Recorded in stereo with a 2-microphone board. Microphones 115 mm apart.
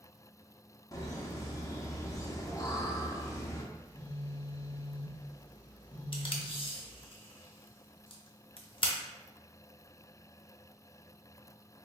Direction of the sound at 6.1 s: 50° left (ahead or behind).